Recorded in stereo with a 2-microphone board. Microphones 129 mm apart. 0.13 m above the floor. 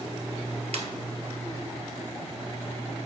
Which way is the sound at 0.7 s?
60° right (ahead or behind).